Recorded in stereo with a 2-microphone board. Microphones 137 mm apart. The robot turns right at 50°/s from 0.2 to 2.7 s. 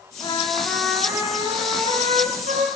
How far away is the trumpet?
About 8 m.